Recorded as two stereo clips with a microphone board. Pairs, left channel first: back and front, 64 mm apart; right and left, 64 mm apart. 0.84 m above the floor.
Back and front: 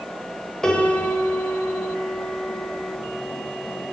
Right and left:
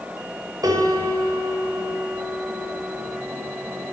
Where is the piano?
100° left, 4.5 m.